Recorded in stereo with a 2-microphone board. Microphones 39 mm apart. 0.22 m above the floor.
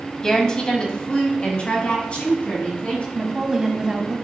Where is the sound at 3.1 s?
20° right (ahead or behind), 1.1 m.